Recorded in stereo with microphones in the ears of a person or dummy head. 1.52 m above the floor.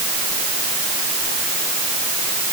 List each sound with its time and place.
Only background noise.